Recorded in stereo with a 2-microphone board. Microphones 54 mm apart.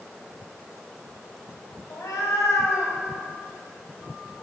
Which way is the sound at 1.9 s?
75° left (ahead or behind).